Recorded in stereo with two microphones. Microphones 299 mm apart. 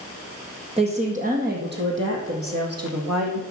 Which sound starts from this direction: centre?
A woman speaking, at 0.8 s.